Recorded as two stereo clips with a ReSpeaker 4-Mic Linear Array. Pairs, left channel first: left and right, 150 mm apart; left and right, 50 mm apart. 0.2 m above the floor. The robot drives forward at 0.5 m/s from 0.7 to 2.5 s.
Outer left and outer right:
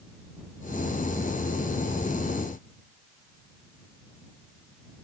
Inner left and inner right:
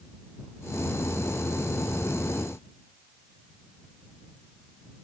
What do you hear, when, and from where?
Only background noise.